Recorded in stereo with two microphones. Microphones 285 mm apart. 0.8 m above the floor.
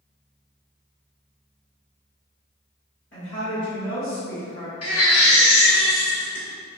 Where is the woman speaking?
45° left (ahead or behind), 1.9 m; by 4.7 s 35° left (ahead or behind), 1.0 m.